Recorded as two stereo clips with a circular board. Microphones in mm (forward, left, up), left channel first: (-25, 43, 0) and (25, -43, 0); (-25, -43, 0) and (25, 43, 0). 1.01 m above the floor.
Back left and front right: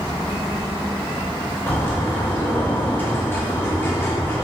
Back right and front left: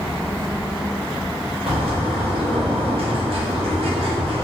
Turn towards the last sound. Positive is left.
turn(degrees=55)